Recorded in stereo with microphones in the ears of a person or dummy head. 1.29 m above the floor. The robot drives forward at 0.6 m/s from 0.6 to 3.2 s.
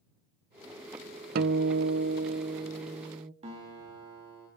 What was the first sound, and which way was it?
A guitar, 55° right (ahead or behind).